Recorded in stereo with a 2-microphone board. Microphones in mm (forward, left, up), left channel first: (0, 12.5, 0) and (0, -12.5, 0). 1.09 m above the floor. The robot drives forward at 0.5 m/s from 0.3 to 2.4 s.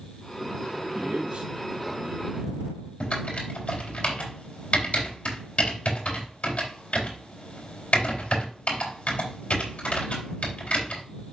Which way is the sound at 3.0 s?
50° left (ahead or behind).